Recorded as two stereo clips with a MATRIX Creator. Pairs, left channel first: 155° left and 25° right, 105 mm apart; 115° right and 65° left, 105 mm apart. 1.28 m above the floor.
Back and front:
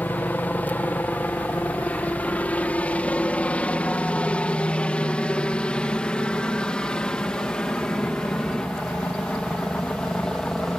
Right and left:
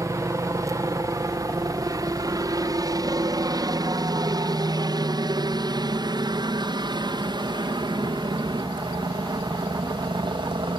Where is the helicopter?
95° left; by 10.8 s 75° left.